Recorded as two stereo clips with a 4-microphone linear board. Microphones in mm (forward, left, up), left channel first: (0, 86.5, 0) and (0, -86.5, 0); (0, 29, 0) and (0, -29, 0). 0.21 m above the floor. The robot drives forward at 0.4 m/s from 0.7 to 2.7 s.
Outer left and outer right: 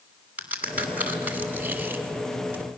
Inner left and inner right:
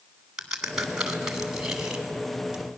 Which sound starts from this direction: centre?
A crack, at 0.4 s.